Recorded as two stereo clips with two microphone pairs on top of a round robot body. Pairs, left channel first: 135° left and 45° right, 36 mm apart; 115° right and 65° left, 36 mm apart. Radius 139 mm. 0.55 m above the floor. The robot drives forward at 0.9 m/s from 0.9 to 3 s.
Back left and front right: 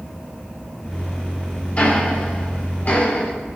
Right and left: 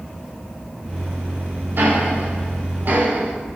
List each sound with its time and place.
1.8 s ticking: 80° left, 4 m; by 3.3 s 95° left, 4 m